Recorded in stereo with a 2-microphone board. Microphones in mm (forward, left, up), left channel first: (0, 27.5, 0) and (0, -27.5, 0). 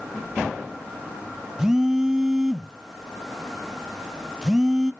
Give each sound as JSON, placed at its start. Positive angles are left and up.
{"t": 1.6, "sound": "a phone buzzing", "side_deg": -10, "distance_m": 0.5}